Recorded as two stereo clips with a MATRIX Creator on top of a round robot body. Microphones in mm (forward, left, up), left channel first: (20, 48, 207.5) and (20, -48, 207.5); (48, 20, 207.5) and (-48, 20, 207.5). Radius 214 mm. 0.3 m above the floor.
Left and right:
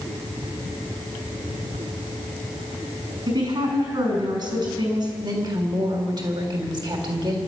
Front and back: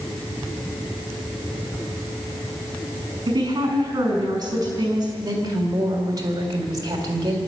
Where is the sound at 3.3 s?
130° right, 5.5 m.